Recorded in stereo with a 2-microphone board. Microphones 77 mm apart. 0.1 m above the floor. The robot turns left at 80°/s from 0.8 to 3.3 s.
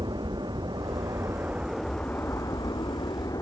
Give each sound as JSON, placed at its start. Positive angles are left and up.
{"t": 0.0, "sound": "an aircraft", "azimuth_deg": -100}